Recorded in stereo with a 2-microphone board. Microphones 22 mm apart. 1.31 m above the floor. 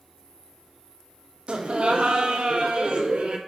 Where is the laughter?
65° right (ahead or behind), 0.6 m.